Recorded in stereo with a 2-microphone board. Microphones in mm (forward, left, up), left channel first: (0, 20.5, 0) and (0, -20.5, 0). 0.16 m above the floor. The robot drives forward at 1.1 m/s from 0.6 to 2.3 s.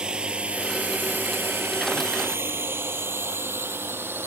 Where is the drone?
20° right (ahead or behind); by 4.3 s 65° right (ahead or behind).